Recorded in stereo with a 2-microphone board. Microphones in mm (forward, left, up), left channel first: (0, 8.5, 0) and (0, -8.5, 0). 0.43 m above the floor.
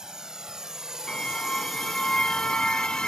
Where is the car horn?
75° left (ahead or behind).